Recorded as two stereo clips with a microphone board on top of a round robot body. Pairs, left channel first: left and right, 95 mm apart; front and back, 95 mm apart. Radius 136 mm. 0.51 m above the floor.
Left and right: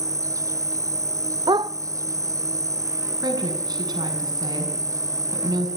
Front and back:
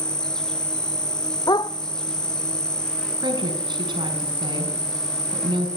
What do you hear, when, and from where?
0.0 s an insect: 75° right, 0.9 m
1.5 s a dog barking: 45° right, 0.7 m
3.2 s a woman speaking: 140° right, 6.5 m